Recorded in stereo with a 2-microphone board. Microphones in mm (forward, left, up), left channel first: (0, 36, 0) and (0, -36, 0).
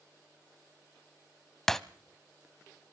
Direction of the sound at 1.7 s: 5° left (ahead or behind).